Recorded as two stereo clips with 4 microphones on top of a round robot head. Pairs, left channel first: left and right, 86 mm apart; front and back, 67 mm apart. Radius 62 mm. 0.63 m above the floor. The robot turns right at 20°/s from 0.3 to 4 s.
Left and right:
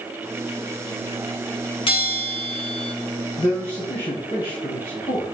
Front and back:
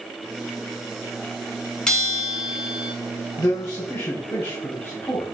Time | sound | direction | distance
1.9 | a bell | 75° left | 1.8 m
3.4 | a man speaking | 35° left | 4 m